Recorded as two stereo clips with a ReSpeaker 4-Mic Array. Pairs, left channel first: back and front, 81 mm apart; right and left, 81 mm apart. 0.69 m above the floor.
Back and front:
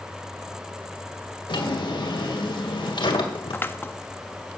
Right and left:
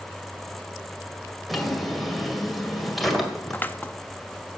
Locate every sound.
1.5 s a drawer: straight behind, 2 m
3.5 s scissors: 140° right, 0.6 m